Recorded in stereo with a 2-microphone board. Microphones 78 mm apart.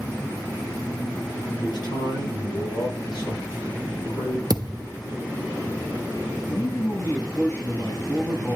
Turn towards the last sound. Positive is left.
turn(degrees=45)  # may be behind; listen again after turning